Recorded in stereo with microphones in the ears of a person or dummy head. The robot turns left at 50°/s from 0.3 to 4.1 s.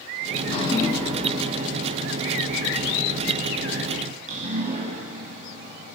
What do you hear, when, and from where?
0.3 s dripping: 50° left (ahead or behind), 3.5 m; by 6.0 s 40° right (ahead or behind), 3.5 m